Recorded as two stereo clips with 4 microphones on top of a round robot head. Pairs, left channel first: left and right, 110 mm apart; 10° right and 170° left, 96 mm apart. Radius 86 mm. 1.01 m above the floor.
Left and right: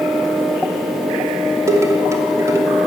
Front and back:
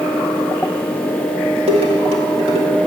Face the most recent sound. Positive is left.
turn(degrees=-155)